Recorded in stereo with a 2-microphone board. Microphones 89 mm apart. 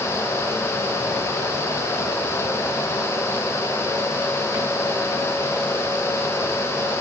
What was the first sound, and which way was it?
Only background noise.